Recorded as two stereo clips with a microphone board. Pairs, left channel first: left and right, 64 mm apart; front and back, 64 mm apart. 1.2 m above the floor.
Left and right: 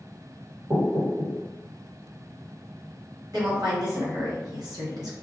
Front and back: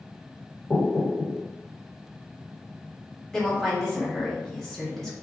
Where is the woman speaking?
85° right, 1.4 m.